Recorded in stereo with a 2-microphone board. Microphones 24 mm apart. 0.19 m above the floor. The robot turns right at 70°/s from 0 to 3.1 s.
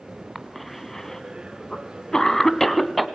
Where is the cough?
5° right (ahead or behind), 1.8 m; by 3.1 s centre (ahead or behind), 1.8 m.